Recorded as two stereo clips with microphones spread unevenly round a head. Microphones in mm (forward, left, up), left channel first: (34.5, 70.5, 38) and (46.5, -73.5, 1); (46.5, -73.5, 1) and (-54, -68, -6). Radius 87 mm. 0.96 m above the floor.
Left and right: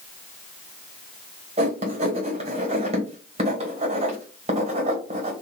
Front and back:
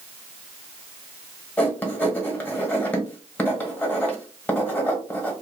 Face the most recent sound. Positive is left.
turn(degrees=-75)